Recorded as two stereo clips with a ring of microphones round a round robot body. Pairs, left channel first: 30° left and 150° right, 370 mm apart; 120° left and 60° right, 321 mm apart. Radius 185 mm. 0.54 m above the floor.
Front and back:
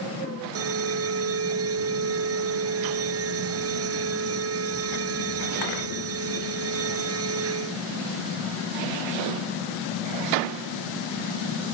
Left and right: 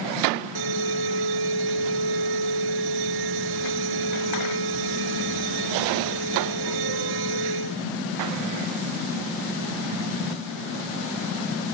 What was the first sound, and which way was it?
An alarm, 95° right.